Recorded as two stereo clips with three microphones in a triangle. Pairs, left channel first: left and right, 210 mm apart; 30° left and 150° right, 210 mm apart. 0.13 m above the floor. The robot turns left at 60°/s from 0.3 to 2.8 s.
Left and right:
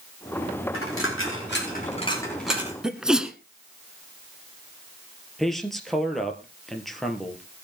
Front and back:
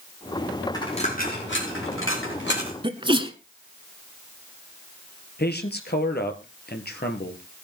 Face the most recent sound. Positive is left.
turn(degrees=0)